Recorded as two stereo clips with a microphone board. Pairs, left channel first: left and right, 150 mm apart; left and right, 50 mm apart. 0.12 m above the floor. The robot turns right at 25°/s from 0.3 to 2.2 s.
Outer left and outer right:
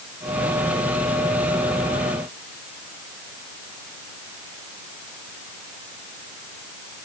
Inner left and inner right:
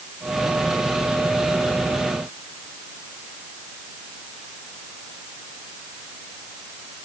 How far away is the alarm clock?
I don't hear an alarm clock.